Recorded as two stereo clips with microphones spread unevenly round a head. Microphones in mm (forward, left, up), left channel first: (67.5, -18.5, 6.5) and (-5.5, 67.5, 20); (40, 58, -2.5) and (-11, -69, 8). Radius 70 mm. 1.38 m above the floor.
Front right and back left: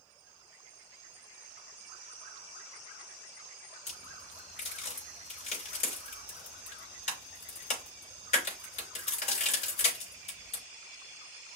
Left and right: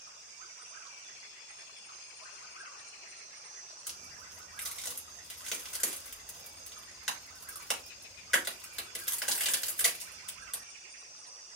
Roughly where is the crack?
Ahead.